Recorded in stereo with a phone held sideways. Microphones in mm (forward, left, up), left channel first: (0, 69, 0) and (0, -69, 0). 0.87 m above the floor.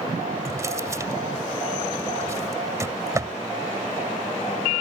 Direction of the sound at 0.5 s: 25° right (ahead or behind).